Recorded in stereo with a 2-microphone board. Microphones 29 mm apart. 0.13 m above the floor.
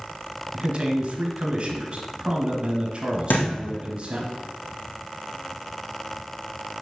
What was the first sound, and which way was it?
A man speaking, 40° right (ahead or behind).